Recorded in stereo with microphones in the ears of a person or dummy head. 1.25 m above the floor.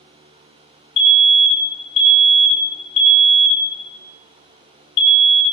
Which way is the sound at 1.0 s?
30° left (ahead or behind).